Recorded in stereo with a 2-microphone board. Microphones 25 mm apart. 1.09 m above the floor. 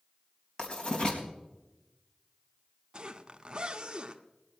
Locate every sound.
0.6 s writing: 35° left (ahead or behind), 4 m
2.9 s a zipper: 30° right (ahead or behind), 1.0 m